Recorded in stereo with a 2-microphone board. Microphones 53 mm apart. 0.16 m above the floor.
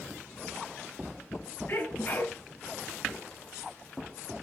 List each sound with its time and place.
1.7 s a sneeze: 45° left (ahead or behind), 2 m